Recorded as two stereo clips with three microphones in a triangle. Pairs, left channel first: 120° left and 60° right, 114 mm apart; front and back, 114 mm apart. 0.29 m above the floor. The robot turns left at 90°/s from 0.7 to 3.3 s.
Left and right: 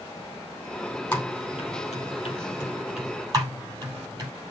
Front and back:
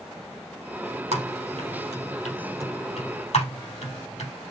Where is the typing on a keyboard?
170° right, 4 m; by 4.3 s 5° right, 4 m.